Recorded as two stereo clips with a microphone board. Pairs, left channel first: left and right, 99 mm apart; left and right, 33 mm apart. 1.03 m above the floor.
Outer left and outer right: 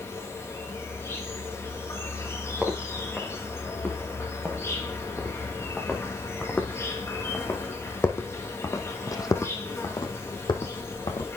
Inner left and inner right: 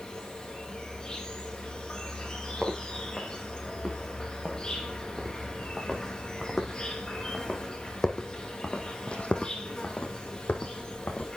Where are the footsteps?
5° right (ahead or behind), 4 m; by 11.3 s 60° left (ahead or behind), 2 m.